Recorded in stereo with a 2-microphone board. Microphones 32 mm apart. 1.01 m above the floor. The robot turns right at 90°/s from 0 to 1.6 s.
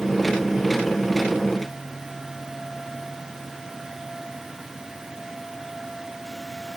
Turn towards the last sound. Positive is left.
No sound to turn to.